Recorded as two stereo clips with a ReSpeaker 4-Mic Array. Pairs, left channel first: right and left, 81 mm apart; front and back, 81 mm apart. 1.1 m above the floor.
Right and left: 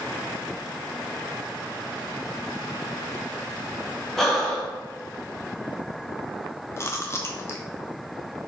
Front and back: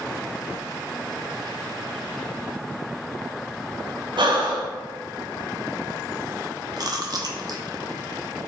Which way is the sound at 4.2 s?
175° right.